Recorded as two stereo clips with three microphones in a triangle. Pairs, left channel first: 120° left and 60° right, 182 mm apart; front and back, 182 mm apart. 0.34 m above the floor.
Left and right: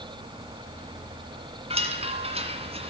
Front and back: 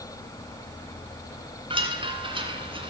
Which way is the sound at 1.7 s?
120° right.